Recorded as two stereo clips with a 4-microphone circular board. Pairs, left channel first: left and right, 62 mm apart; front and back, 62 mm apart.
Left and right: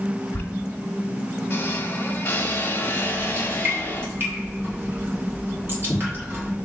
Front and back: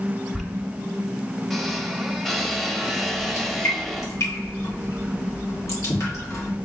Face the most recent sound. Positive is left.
turn(degrees=-40)